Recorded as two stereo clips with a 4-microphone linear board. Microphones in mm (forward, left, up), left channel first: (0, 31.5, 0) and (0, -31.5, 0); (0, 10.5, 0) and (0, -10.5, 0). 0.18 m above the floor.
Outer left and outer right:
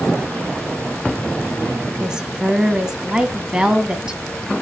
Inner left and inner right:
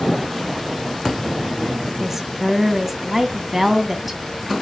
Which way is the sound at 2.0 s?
10° right (ahead or behind).